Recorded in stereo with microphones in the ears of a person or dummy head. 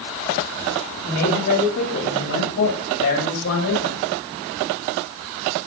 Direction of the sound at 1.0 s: 75° left (ahead or behind).